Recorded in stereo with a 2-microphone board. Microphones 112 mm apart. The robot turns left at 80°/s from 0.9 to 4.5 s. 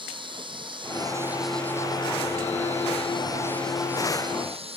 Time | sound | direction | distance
0.0 | an insect | 130° right | ?